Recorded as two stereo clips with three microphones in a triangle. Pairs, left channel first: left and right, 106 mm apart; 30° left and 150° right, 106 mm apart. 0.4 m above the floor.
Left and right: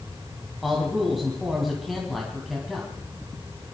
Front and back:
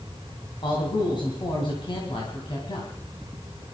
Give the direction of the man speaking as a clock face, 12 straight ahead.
12 o'clock.